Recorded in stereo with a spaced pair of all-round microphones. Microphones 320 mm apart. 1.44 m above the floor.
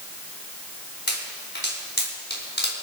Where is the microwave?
I don't hear a microwave.